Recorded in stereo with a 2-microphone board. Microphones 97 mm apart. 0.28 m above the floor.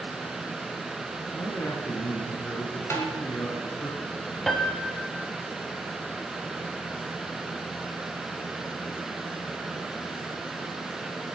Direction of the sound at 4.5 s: 5° left (ahead or behind).